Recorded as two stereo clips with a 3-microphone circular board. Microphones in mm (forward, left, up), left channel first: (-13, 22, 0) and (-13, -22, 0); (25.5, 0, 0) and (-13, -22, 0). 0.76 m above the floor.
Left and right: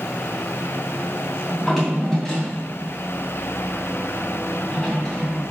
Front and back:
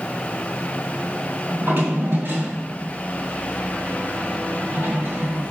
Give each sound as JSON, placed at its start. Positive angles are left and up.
{"t": 1.5, "sound": "a drawer", "azimuth_deg": 175, "distance_m": 2.5}